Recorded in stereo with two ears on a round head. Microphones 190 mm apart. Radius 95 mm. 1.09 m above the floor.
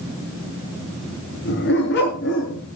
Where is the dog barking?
55° left (ahead or behind), 6 m; by 2.6 s 60° left (ahead or behind), 6 m.